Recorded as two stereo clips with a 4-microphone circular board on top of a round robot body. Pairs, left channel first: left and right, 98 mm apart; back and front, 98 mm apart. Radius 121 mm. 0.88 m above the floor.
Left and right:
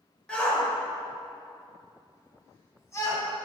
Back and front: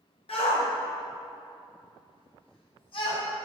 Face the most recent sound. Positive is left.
turn(degrees=150)